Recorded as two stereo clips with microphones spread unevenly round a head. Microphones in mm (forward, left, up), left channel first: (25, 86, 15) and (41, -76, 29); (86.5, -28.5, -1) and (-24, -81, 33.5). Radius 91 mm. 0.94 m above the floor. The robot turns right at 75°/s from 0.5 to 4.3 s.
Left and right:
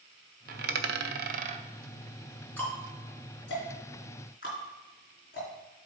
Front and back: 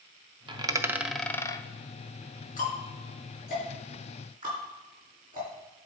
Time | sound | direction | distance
0.5 | a dropped coin | 120° right | 0.7 m
2.6 | ticking | 15° left | 4 m